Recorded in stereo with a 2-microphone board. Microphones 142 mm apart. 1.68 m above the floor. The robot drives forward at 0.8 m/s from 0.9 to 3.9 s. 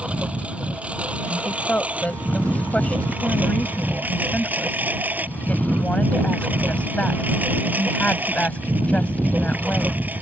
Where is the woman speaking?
10° left (ahead or behind).